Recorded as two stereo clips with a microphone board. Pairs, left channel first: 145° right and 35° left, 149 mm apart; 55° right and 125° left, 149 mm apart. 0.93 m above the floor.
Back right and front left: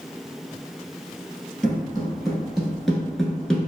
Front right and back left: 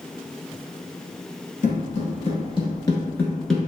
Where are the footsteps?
55° right, 1.5 m; by 3.7 s 165° left, 0.8 m.